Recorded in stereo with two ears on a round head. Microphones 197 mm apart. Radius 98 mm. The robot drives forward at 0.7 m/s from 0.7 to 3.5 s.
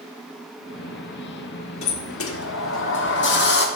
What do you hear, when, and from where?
1.8 s a sliding door: 65° left (ahead or behind), 1.4 m; by 3.7 s 50° left (ahead or behind), 1.6 m